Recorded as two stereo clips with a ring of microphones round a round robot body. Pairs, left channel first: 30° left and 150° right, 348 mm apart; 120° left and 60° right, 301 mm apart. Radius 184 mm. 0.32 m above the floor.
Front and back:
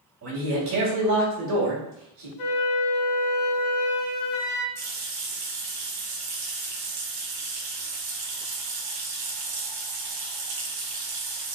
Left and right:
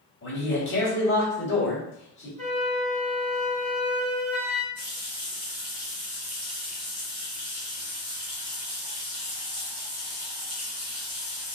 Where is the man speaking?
170° left, 2 m.